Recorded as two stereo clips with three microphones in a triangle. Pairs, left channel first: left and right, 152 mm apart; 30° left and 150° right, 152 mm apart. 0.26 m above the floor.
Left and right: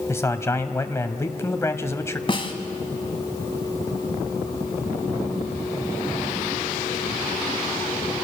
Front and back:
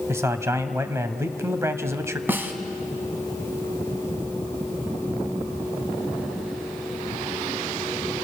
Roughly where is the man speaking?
Behind left.